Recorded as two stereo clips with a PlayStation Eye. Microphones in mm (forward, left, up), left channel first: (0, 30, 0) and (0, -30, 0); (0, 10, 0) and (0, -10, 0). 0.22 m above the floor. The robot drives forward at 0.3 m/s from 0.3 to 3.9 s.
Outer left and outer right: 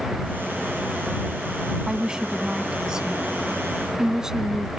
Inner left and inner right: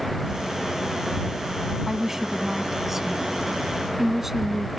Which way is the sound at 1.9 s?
15° right (ahead or behind).